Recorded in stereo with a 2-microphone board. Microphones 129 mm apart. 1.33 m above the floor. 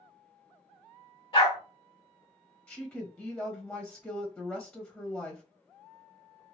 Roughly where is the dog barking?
Left.